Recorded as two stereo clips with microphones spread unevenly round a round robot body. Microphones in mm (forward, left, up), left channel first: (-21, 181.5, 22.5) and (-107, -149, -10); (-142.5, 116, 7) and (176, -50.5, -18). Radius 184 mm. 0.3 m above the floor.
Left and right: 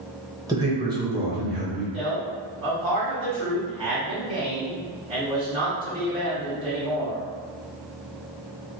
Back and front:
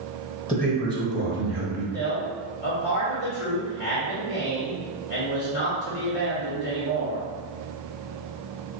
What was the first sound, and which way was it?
A man speaking, 140° right.